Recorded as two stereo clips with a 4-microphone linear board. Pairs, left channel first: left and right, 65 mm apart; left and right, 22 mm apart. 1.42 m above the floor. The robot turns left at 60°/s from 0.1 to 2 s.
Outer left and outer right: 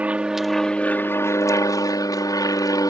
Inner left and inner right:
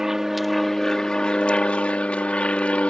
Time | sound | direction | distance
0.0 | an aircraft | 155° right | ?